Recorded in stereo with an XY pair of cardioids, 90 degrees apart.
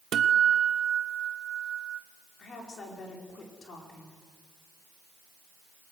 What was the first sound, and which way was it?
A guitar, 65° right.